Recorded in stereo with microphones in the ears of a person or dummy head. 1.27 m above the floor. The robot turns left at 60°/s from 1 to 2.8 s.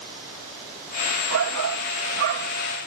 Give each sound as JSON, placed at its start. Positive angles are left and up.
{"t": 1.3, "sound": "a shout", "azimuth_deg": -65}